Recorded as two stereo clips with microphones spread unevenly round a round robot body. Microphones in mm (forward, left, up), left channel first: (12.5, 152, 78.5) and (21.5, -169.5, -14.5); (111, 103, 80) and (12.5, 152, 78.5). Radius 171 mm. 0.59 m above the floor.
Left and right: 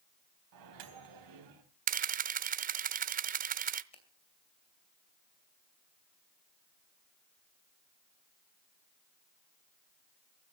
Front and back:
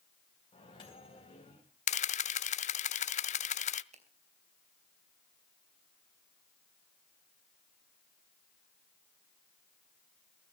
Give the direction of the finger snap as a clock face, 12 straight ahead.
6 o'clock.